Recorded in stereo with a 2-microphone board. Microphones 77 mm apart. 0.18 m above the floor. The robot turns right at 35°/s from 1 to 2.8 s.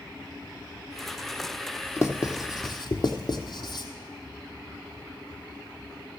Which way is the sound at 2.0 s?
35° left (ahead or behind).